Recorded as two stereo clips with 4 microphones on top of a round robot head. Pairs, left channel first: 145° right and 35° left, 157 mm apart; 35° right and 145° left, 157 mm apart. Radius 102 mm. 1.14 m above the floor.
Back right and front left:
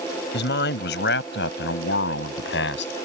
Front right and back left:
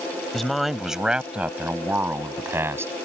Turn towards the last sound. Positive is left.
turn(degrees=-140)